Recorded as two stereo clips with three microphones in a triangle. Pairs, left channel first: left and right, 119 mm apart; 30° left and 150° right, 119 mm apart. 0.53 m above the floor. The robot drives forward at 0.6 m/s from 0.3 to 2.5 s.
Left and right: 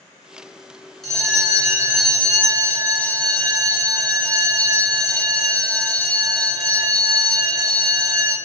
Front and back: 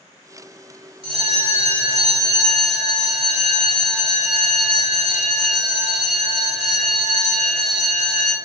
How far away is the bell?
About 1.5 m.